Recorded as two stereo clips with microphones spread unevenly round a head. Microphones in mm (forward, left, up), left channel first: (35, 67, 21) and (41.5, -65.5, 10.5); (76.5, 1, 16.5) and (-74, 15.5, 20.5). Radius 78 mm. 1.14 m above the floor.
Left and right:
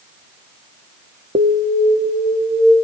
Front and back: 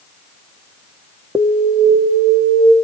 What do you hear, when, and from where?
1.4 s an alarm: 105° right, 0.8 m